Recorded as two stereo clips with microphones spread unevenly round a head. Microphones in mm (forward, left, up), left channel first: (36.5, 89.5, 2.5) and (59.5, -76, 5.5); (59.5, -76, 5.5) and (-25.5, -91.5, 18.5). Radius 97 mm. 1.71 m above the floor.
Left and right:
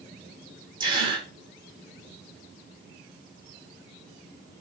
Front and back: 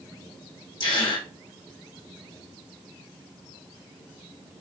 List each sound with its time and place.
0.8 s a gasp: 20° right, 5.5 m